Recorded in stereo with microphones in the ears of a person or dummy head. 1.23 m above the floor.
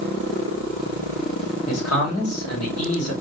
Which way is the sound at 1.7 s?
90° left.